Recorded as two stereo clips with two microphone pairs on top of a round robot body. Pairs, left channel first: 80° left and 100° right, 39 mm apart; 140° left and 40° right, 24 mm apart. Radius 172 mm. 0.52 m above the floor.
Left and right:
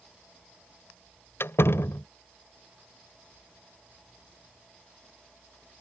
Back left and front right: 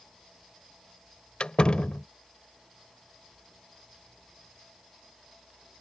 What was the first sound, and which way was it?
A door slam, 95° left.